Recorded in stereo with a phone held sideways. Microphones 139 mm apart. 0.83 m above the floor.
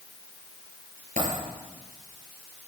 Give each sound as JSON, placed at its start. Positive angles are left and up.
{"t": 1.2, "sound": "a dropped coin", "side_deg": -75, "distance_m": 5.5}